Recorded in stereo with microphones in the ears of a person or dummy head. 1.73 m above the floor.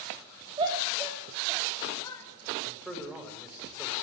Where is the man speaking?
Centre (ahead or behind), 7.5 m.